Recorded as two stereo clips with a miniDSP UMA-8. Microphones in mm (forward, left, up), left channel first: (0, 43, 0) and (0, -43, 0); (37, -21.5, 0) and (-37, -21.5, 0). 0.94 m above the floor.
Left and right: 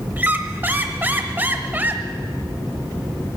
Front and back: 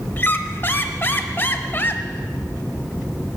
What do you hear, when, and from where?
0.2 s a squeak: 35° right, 0.8 m